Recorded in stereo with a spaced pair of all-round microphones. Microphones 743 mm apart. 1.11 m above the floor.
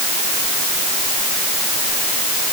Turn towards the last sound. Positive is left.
No sound to turn to.